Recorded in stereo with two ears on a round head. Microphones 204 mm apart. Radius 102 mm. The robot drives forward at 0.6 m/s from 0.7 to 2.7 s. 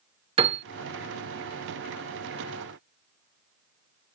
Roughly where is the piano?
Right.